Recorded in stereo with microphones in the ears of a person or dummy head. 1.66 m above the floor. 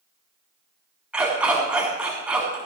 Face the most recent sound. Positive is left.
turn(degrees=-10)  # may be behind; listen again after turning